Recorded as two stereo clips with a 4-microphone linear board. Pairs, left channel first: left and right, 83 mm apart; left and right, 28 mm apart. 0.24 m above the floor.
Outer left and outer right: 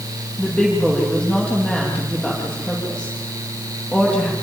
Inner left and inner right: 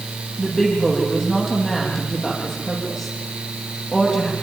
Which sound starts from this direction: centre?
A woman speaking, at 0.4 s.